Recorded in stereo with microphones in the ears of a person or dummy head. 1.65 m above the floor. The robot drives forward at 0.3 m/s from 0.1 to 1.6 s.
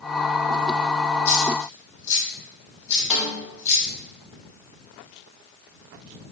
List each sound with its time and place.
1.2 s a dropped coin: 15° left (ahead or behind), 1.9 m
3.1 s a snare drum: 5° right (ahead or behind), 1.0 m